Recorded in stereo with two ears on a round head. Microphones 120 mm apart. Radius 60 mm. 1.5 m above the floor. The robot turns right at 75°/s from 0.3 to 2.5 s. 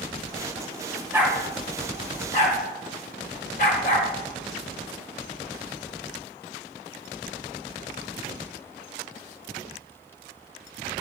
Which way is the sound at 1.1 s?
15° right (ahead or behind).